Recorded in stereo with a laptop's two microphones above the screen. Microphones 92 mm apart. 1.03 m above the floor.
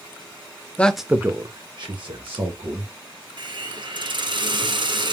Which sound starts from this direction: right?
A hiss, at 3.4 s.